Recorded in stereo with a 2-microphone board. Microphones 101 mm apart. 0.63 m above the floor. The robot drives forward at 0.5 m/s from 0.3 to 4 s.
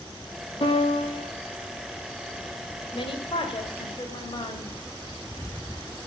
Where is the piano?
65° left (ahead or behind), 4.5 m.